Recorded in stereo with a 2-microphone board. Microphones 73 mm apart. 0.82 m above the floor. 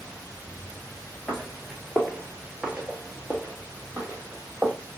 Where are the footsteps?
5° left (ahead or behind), 0.9 m; by 4.7 s 25° right (ahead or behind), 1.6 m.